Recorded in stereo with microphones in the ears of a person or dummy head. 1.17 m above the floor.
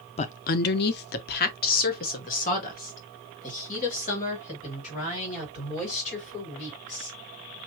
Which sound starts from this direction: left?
A woman speaking, at 0.2 s.